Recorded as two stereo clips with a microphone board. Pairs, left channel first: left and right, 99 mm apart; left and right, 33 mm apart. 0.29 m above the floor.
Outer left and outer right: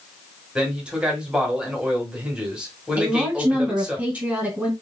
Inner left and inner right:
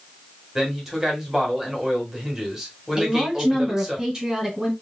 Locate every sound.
0.6 s a man speaking: 10° right (ahead or behind), 1.6 m
3.0 s a woman speaking: 15° right (ahead or behind), 2 m